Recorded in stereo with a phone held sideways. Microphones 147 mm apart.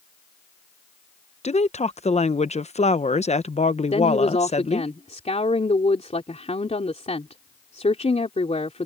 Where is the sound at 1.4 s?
50° left (ahead or behind).